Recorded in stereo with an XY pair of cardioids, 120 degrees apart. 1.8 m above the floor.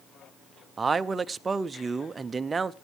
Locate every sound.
0.8 s a man speaking: 25° right, 0.7 m